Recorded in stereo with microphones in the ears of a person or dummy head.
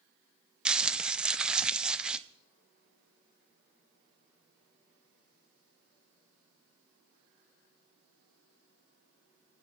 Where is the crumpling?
5° right (ahead or behind), 0.6 m.